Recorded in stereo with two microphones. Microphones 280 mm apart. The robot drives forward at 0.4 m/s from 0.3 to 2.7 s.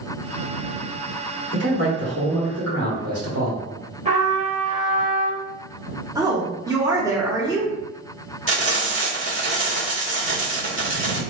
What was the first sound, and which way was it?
A man speaking, 65° right (ahead or behind).